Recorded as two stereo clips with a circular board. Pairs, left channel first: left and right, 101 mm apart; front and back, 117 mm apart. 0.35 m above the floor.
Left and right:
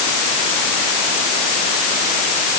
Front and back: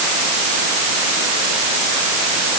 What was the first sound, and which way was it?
Only background noise.